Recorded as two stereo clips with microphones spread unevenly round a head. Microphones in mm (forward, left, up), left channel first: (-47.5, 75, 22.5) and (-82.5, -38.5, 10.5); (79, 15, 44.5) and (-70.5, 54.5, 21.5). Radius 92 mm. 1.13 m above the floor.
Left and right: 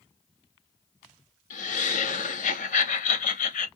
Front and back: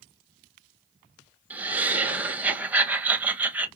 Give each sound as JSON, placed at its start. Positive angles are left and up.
{"t": 1.5, "sound": "laughter", "azimuth_deg": 85, "distance_m": 0.8}